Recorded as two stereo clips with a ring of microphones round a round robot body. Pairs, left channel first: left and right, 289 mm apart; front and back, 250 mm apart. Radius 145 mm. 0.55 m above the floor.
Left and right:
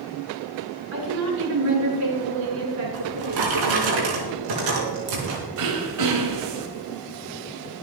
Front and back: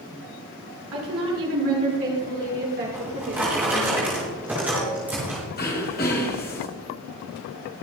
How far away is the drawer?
About 4.5 m.